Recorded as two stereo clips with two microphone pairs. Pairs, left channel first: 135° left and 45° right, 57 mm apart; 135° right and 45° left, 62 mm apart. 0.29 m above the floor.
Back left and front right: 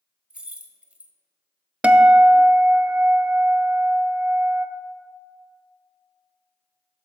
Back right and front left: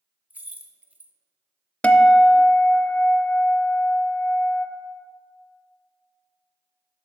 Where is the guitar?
95° right, 0.6 m.